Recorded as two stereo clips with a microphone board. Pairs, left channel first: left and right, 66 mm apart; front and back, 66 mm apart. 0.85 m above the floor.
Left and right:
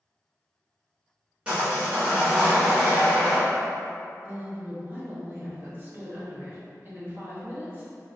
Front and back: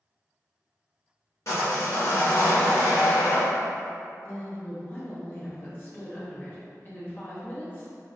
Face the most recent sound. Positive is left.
turn(degrees=-50)